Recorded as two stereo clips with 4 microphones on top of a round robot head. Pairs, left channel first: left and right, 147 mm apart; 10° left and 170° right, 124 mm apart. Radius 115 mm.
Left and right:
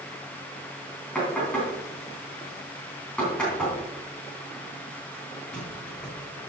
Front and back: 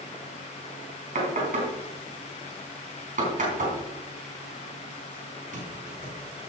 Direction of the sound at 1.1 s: 175° left.